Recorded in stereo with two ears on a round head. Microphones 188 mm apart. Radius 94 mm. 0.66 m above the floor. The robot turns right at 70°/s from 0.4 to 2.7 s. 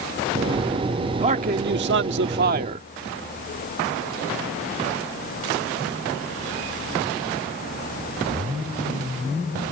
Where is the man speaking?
145° right; by 2.9 s 40° right.